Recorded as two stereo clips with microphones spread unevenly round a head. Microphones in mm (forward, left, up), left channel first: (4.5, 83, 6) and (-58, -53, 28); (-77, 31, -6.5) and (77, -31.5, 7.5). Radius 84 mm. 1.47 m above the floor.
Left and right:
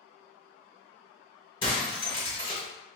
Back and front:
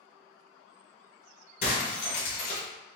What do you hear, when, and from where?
1.6 s breaking glass: 125° left, 1.9 m